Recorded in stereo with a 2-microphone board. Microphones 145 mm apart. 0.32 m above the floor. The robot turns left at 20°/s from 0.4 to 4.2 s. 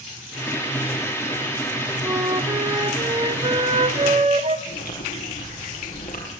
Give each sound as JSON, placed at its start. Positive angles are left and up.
{"t": 2.0, "sound": "a flute", "azimuth_deg": -15, "distance_m": 1.3}
{"t": 4.7, "sound": "chewing", "side_deg": 75, "distance_m": 6.5}